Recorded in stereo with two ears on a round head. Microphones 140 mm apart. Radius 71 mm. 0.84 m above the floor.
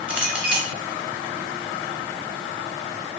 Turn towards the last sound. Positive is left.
turn(degrees=-10)  # may be behind; listen again after turning